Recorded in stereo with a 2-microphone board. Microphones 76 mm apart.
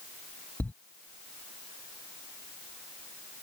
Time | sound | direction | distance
0.6 | a thud | 25° left (ahead or behind) | ?